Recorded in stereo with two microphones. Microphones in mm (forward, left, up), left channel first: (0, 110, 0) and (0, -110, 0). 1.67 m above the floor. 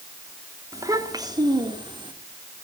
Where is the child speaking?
15° right (ahead or behind), 3.5 m; by 2.1 s 20° right (ahead or behind), 4 m.